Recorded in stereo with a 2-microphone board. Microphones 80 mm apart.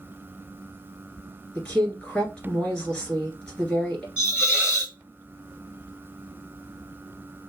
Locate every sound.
1.6 s a woman speaking: 10° left (ahead or behind), 2.0 m
4.2 s a hiss: 15° right (ahead or behind), 2 m